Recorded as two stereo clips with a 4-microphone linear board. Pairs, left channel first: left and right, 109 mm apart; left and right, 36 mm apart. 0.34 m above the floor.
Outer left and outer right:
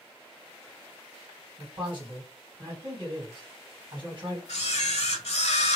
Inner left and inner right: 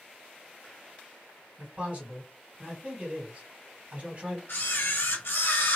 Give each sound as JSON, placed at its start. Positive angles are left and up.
{"t": 1.6, "sound": "a man speaking", "side_deg": -50, "distance_m": 2.0}
{"t": 4.5, "sound": "a camera shutter", "side_deg": 80, "distance_m": 0.9}